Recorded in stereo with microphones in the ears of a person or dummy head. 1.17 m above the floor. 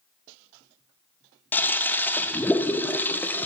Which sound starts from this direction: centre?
A toilet flushing, at 1.5 s.